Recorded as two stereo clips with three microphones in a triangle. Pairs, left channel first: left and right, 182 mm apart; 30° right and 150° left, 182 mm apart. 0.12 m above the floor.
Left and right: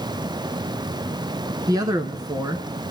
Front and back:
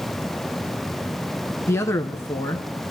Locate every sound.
1.7 s a man speaking: 75° right, 1.1 m